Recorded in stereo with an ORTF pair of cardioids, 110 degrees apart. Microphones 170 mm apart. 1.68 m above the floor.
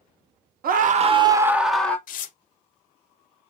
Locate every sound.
0.6 s a scream: 60° right, 0.9 m; by 2.0 s 10° left, 1.0 m
2.1 s tearing paper: 55° left, 0.8 m